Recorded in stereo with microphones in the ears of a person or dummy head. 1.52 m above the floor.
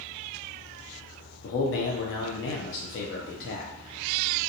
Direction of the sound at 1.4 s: 60° left (ahead or behind).